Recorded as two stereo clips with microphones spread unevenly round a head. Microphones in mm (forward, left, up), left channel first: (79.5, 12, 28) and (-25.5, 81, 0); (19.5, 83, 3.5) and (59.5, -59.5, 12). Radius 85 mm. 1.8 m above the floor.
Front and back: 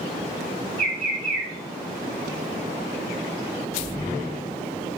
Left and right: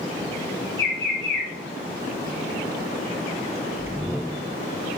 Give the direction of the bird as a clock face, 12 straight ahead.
7 o'clock.